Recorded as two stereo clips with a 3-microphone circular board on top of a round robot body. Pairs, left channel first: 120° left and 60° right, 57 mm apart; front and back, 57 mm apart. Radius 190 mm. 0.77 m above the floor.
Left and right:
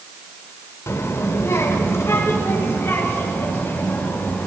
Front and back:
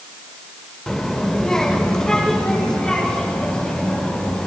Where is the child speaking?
80° left, 1.9 m; by 4.5 s 70° left, 4 m.